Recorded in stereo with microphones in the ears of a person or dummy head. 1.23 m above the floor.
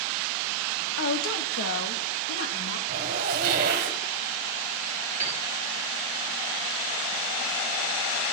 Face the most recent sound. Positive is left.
turn(degrees=-15)  # may be behind; listen again after turning